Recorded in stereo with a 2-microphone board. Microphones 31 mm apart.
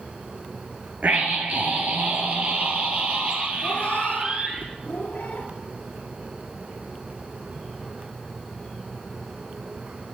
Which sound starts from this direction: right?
A scream, at 1.0 s.